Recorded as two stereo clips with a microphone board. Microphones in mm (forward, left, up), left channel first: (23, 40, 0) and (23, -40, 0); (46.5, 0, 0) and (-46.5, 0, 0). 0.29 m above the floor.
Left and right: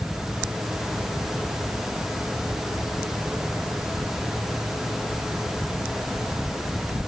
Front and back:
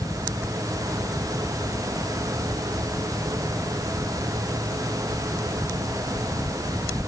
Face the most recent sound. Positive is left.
No sound to turn to.